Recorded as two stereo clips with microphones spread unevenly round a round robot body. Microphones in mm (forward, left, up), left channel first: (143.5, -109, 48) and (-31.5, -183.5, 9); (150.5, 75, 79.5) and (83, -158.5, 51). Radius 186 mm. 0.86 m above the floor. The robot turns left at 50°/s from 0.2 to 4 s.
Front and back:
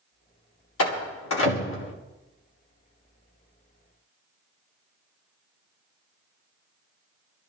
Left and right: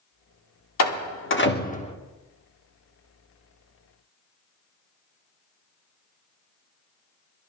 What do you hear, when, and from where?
0.8 s a door slam: 60° left, 2 m; by 1.9 s 5° left, 2 m